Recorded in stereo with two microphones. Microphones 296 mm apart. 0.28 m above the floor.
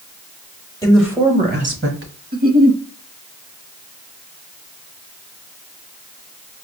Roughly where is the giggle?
Right.